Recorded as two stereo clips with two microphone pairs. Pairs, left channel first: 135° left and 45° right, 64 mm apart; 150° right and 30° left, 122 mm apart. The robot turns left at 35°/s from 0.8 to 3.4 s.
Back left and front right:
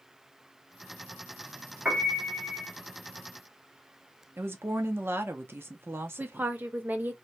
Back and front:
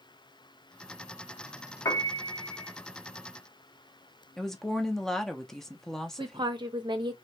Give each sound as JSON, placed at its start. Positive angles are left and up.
{"t": 1.9, "sound": "a piano", "azimuth_deg": -100, "distance_m": 1.0}
{"t": 4.4, "sound": "a woman speaking", "azimuth_deg": -65, "distance_m": 0.6}
{"t": 6.2, "sound": "a woman speaking", "azimuth_deg": 5, "distance_m": 0.7}